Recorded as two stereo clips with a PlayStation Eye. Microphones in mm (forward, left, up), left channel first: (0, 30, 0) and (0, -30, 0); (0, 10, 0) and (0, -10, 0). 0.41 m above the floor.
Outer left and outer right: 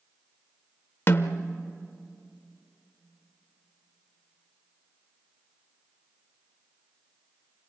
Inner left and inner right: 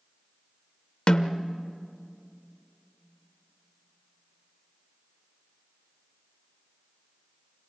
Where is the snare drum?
45° left (ahead or behind), 0.8 m.